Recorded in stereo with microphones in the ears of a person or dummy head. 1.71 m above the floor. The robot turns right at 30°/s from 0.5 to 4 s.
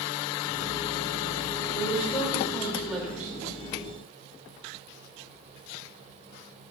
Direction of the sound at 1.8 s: 155° left.